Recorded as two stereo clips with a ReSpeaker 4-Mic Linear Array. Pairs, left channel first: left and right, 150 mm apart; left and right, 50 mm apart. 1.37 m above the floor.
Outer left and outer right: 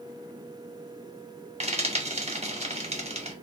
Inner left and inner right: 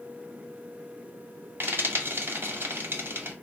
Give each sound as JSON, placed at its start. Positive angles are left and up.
{"t": 1.6, "sound": "frying", "side_deg": -45, "distance_m": 0.9}